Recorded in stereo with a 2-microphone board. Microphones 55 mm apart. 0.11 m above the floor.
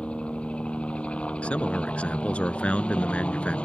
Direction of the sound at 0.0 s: 20° left (ahead or behind).